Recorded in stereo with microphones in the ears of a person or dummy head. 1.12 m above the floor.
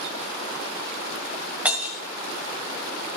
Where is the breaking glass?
Centre (ahead or behind), 1.4 m.